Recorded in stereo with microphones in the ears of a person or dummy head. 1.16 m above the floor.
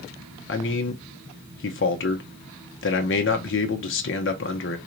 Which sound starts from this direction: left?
A man speaking, at 0.5 s.